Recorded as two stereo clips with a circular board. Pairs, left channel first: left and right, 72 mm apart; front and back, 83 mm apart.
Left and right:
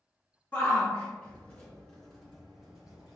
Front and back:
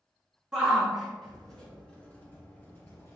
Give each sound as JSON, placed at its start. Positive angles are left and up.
{"t": 0.5, "sound": "a shout", "azimuth_deg": 105, "distance_m": 1.5}